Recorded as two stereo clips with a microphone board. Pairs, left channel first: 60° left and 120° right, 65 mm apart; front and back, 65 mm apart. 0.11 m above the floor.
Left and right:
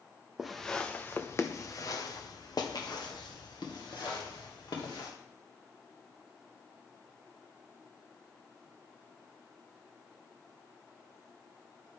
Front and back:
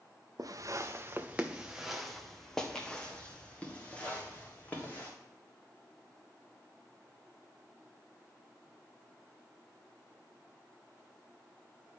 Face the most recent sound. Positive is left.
turn(degrees=65)